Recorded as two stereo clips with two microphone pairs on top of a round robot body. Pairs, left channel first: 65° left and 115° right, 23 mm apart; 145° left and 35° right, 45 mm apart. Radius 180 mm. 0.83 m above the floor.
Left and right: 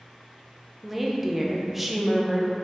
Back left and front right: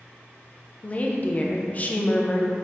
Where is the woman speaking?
170° left, 0.5 m.